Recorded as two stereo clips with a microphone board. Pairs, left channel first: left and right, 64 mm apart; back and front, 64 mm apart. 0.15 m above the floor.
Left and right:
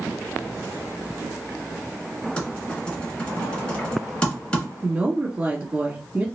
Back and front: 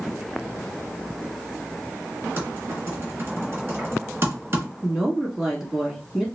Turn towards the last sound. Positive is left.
turn(degrees=-75)